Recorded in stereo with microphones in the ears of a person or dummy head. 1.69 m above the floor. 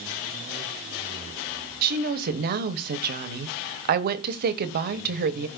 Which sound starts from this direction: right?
A woman speaking, at 1.8 s.